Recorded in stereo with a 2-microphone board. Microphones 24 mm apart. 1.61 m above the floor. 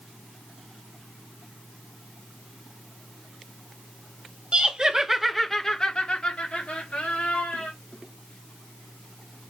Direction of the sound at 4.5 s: 40° right (ahead or behind).